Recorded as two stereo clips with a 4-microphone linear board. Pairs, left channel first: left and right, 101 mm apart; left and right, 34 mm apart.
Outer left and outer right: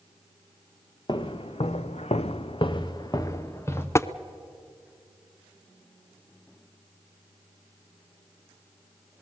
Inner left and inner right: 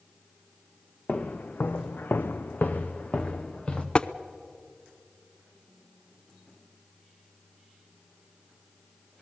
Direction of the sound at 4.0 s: 25° left (ahead or behind).